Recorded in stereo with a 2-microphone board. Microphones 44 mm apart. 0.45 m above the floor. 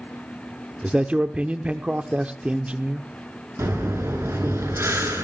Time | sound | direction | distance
0.8 | a man speaking | 25° right (ahead or behind) | 0.8 m
3.6 | breathing | 75° right (ahead or behind) | 5 m